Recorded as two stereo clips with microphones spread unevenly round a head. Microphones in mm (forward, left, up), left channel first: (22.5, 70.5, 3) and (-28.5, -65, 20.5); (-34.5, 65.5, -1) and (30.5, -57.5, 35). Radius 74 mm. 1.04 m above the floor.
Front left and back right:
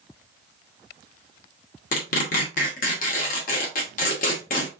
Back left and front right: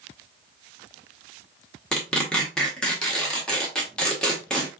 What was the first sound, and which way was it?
Tearing paper, 30° left.